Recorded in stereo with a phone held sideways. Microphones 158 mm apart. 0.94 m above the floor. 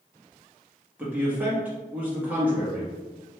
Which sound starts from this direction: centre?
A man speaking, at 1.0 s.